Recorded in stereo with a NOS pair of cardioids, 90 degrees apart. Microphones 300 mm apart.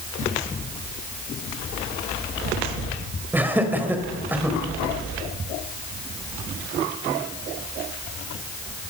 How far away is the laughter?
About 4.5 m.